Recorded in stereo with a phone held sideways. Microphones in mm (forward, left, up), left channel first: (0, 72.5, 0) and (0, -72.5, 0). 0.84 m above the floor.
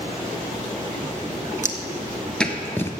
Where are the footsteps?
20° right (ahead or behind), 0.9 m; by 2.9 s 20° left (ahead or behind), 1.0 m.